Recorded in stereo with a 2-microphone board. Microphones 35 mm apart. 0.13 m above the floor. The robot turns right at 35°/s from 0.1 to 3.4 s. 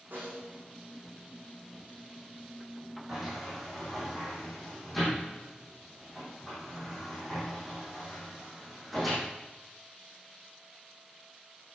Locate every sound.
0.1 s a snare drum: 80° right, 6 m; by 0.6 s 65° right (ahead or behind), 6 m
3.1 s a sliding door: 10° right (ahead or behind), 6 m; by 9.2 s centre (ahead or behind), 6 m